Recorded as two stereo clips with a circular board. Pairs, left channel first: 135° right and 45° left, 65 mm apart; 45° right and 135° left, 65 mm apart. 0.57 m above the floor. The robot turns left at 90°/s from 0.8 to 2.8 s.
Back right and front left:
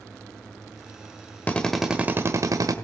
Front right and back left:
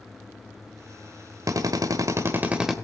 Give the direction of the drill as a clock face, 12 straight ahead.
7 o'clock.